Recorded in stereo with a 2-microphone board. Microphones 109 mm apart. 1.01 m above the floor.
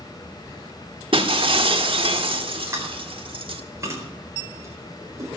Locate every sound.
1.1 s breaking glass: 55° right (ahead or behind), 1.3 m
2.7 s chewing: 25° right (ahead or behind), 4 m